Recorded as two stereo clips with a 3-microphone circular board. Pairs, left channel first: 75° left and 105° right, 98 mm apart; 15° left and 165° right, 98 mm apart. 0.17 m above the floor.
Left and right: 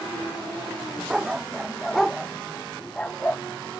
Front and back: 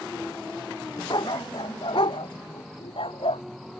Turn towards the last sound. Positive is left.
turn(degrees=0)